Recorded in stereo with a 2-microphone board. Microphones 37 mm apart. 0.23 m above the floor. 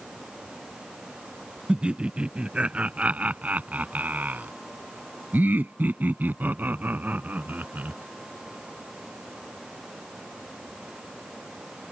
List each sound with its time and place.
1.7 s laughter: 25° right (ahead or behind); by 8.0 s 45° right (ahead or behind)